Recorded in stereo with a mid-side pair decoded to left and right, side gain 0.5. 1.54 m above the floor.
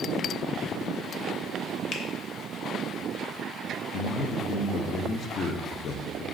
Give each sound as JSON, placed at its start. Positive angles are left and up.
{"t": 1.9, "sound": "a finger snap", "azimuth_deg": 55, "distance_m": 0.8}
{"t": 3.9, "sound": "a man speaking", "azimuth_deg": 55, "distance_m": 0.7}